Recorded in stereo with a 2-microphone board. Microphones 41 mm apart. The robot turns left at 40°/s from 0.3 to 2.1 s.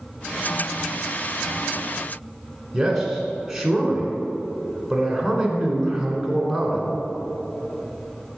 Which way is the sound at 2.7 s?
5° right (ahead or behind).